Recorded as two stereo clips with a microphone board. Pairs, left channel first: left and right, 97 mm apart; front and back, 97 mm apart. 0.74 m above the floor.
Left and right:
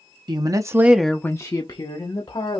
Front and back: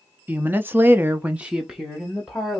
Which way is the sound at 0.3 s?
115° right.